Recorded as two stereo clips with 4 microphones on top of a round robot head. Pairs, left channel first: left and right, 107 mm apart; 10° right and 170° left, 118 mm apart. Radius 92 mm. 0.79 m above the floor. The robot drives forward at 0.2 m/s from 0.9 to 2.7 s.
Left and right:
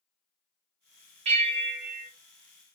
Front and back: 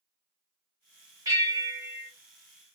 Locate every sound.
1.2 s a bell: 115° right, 1.3 m; by 2.1 s 125° right, 1.4 m